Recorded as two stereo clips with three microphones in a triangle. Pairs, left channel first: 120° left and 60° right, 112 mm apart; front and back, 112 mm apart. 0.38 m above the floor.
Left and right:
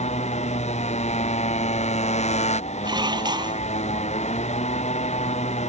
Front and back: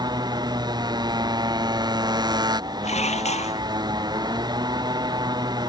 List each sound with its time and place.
0.0 s a motorcycle: 130° left
2.8 s dishes clattering: 10° right